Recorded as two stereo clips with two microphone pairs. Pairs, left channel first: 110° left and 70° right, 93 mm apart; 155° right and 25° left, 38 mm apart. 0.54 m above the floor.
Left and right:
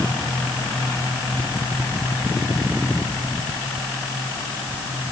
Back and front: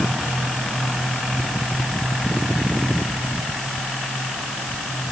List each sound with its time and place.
Only background noise.